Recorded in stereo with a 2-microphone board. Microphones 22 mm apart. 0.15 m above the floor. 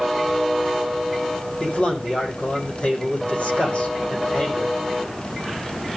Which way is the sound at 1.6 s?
50° left (ahead or behind).